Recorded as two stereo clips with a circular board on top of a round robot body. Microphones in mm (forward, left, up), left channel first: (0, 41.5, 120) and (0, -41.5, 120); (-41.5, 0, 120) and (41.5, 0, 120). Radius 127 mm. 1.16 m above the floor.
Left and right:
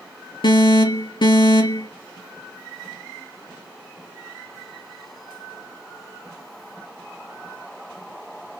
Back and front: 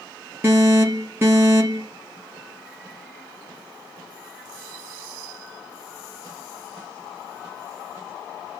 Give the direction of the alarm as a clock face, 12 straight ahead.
10 o'clock.